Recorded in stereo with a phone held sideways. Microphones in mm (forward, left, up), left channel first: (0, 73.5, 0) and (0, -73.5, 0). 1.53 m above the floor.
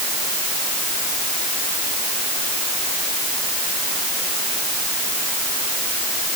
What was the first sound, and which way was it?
Only background noise.